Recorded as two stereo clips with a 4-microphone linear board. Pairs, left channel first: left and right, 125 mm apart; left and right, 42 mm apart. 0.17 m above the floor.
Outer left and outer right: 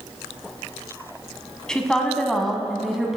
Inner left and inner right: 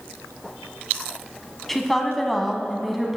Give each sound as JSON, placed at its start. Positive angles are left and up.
{"t": 1.7, "sound": "a woman speaking", "side_deg": 5, "distance_m": 1.1}